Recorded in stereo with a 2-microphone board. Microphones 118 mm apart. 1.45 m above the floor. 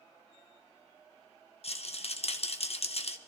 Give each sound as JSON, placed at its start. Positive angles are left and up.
{"t": 1.6, "sound": "a rattle", "side_deg": 60, "distance_m": 0.8}